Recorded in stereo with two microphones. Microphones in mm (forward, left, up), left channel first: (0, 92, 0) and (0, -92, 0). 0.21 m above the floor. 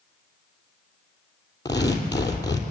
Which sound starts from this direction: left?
Tearing paper, at 1.6 s.